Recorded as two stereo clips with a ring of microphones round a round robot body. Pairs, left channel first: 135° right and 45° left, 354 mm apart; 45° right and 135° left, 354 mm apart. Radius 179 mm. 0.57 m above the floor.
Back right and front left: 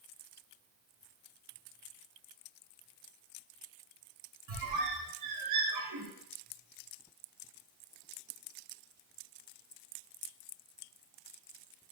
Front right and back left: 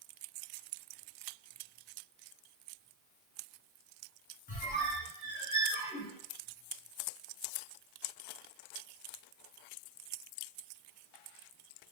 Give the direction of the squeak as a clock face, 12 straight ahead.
11 o'clock.